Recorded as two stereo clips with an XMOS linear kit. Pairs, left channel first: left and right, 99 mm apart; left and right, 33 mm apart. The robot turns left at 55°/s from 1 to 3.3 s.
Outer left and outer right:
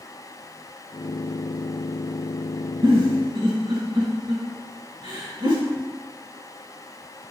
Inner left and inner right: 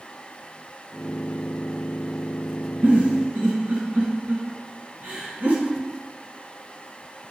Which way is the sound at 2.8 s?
50° right (ahead or behind).